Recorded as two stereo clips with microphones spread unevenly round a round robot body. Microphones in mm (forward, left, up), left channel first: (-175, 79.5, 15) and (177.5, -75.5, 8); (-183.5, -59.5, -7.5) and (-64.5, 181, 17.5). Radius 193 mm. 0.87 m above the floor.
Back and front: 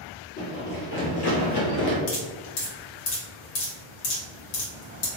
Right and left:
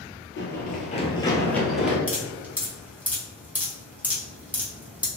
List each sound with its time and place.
0.4 s running footsteps: 145° right, 1.0 m; by 2.0 s 140° left, 1.1 m
2.1 s dripping: 150° left, 1.2 m